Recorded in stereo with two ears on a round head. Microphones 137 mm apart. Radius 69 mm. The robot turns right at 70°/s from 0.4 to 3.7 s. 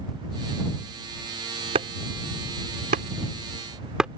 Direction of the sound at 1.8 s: 40° right (ahead or behind).